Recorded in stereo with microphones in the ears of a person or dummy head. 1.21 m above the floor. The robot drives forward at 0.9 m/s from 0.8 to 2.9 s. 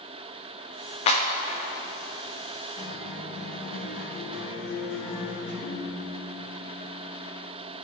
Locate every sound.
1.1 s a clap: 35° left (ahead or behind), 1.2 m; by 1.2 s 30° left (ahead or behind), 1.3 m
2.8 s a guitar: 40° left (ahead or behind), 3 m
5.6 s a piano: 70° left (ahead or behind), 1.7 m